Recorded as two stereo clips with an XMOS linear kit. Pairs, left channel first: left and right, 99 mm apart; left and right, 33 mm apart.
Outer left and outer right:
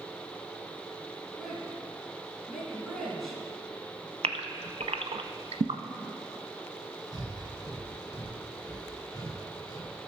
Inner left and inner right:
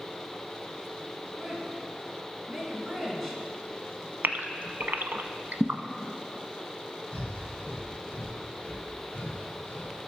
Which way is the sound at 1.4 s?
Centre (ahead or behind).